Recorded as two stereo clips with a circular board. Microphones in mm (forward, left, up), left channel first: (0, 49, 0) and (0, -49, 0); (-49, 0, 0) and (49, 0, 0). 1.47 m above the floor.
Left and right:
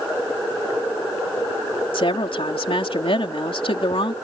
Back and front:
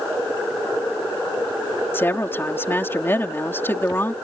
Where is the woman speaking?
115° left.